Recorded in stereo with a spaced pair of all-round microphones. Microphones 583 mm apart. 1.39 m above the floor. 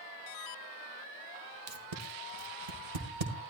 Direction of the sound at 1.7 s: 70° right (ahead or behind).